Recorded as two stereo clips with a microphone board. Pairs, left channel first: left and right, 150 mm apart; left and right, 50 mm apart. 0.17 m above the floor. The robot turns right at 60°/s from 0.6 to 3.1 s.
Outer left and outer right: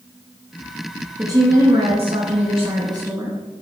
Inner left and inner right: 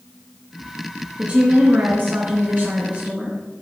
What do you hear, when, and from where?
1.2 s a woman speaking: 150° right, 2 m; by 3.4 s 35° right, 2 m